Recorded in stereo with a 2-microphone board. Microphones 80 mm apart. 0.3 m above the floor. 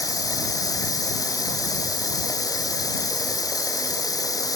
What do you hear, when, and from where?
0.0 s running water: 50° left (ahead or behind)